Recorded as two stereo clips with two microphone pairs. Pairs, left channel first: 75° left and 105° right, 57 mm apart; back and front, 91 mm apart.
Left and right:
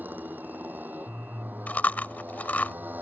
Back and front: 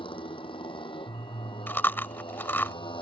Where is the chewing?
120° left.